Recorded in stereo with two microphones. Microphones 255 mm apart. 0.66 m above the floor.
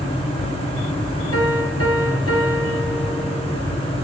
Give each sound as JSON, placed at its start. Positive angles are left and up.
{"t": 1.3, "sound": "a piano", "side_deg": 60, "distance_m": 6.0}